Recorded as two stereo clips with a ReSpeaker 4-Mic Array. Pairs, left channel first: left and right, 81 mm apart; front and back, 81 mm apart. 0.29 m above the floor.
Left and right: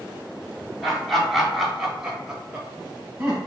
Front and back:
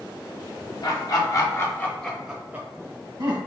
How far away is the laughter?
About 1.4 m.